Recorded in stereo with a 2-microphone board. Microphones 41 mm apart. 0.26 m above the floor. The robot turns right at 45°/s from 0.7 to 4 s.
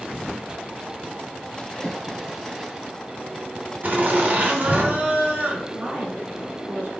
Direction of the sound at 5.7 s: 35° right (ahead or behind).